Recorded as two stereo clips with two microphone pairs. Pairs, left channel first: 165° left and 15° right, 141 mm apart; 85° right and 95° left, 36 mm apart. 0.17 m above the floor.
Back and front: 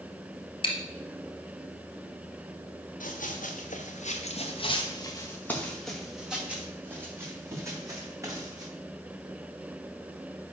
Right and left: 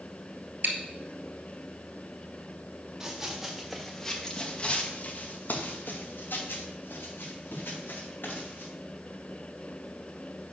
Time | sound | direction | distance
0.6 | chewing | 115° left | 1.6 m
3.0 | running footsteps | 170° left | 2.5 m